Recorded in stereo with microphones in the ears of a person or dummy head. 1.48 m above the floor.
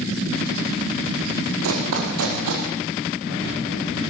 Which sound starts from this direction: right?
Running footsteps, at 1.6 s.